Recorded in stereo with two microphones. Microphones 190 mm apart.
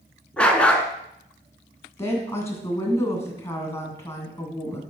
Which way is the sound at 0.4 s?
5° left (ahead or behind).